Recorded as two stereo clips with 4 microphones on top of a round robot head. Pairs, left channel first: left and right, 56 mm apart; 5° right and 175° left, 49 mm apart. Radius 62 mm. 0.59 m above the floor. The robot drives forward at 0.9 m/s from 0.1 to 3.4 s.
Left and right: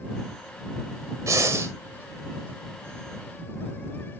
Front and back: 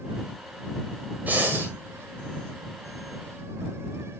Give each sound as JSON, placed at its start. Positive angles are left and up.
{"t": 1.3, "sound": "breathing", "azimuth_deg": -125, "distance_m": 1.4}